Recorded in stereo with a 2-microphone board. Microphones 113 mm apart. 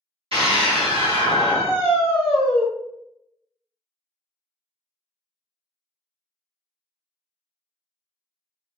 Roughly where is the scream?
Right.